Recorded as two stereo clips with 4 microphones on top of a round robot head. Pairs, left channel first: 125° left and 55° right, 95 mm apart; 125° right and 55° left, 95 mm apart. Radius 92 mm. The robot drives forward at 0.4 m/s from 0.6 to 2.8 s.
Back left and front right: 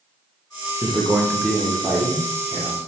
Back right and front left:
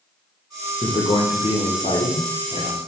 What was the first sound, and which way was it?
A man speaking, 115° right.